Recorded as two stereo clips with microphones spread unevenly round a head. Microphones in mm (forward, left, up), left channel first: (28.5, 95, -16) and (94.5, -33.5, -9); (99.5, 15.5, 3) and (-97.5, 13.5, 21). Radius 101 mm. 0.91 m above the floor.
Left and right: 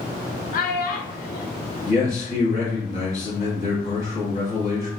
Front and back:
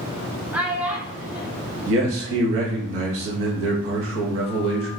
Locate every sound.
0.5 s a child speaking: 95° left, 0.7 m
1.9 s a man speaking: 165° left, 1.0 m